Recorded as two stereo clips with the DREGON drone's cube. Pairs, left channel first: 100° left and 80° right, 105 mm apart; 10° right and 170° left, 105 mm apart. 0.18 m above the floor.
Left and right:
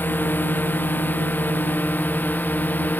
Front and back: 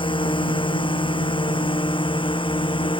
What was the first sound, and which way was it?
A drone, 25° left.